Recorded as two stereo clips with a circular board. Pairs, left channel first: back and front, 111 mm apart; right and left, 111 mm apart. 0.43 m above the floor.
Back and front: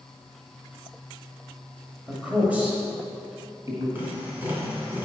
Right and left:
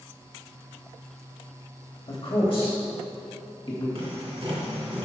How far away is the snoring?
I don't hear snoring.